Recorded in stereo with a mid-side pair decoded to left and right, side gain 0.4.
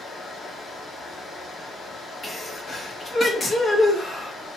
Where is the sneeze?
40° left, 2 m.